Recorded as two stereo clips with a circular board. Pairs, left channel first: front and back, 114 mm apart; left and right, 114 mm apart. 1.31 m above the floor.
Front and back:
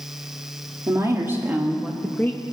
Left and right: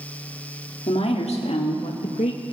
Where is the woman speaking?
115° left, 2.5 m; by 2.4 s 60° left, 1.0 m.